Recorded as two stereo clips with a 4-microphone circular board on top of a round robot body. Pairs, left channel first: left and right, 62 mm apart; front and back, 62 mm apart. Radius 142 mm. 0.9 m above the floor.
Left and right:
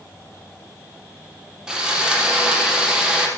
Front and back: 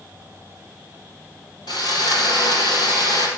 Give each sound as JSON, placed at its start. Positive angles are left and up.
{"t": 1.7, "sound": "sawing", "azimuth_deg": -10, "distance_m": 5.0}